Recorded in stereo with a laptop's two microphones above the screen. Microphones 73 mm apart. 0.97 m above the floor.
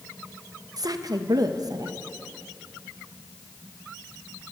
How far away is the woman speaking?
About 0.7 m.